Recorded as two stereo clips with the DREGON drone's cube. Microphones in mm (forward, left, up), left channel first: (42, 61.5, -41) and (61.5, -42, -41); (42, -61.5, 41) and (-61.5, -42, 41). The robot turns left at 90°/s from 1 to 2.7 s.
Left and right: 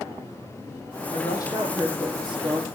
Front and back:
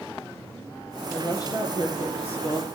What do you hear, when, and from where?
1.1 s a woman speaking: 70° left, 6 m; by 2.7 s 70° right, 6 m